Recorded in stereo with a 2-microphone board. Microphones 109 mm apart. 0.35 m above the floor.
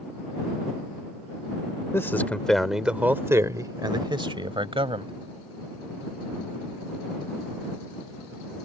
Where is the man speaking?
25° left (ahead or behind); by 5.1 s 60° right (ahead or behind).